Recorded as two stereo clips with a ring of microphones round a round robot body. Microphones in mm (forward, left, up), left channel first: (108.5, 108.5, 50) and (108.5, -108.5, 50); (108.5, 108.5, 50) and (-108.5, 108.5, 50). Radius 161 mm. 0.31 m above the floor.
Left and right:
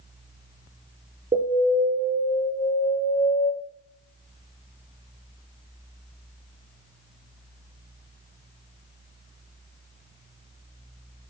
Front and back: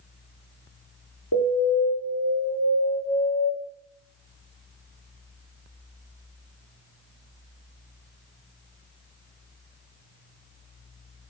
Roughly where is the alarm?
Ahead right.